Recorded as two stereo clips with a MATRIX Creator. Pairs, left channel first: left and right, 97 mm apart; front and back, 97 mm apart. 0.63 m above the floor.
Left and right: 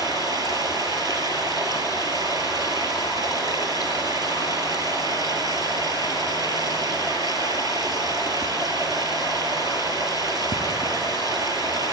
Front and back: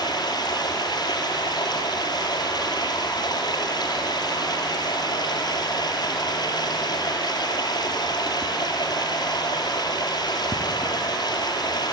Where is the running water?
45° right, 2.5 m.